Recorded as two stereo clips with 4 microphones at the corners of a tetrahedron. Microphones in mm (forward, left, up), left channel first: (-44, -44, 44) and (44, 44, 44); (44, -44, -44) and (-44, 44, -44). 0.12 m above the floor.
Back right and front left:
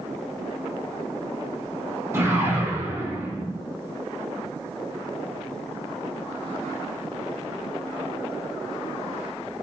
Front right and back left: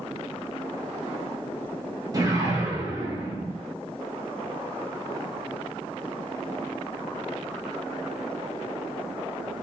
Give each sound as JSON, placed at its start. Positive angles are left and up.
{"t": 2.1, "sound": "a whoosh", "azimuth_deg": 105, "distance_m": 0.5}